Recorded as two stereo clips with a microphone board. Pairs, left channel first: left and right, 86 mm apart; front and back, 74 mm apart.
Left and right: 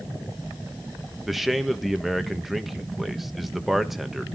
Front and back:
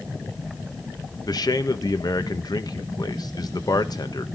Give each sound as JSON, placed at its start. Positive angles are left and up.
{"t": 1.3, "sound": "a man speaking", "azimuth_deg": 0, "distance_m": 1.3}